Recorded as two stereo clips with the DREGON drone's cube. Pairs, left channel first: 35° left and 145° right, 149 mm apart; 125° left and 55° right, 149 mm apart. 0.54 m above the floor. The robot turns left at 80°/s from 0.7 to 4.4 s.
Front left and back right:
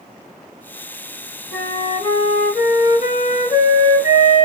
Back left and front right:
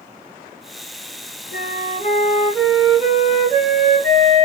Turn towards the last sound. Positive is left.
turn(degrees=-100)